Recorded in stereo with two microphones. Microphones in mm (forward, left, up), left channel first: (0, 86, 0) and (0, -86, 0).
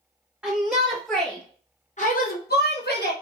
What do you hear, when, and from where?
0.4 s a shout: 10° right (ahead or behind), 1.6 m; by 3.1 s 70° left (ahead or behind), 1.3 m